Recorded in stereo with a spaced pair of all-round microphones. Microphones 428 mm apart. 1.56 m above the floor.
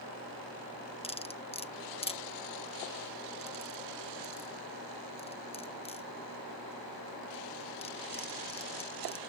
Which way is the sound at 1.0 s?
15° left (ahead or behind).